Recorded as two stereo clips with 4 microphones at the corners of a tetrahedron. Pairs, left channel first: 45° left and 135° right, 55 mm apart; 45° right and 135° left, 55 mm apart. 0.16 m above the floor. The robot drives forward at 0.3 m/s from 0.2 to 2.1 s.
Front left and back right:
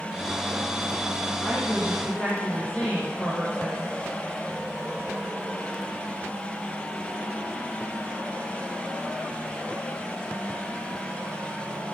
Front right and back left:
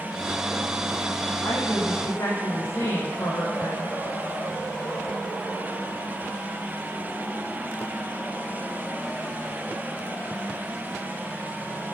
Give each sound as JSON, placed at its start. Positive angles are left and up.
{"t": 1.4, "sound": "a woman speaking", "azimuth_deg": -20, "distance_m": 6.0}